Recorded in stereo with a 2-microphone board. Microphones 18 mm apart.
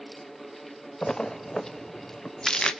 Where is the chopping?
No chopping in this recording.